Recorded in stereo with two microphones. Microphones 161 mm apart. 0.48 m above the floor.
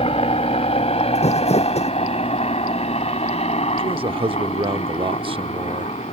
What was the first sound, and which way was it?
A helicopter, 35° left (ahead or behind).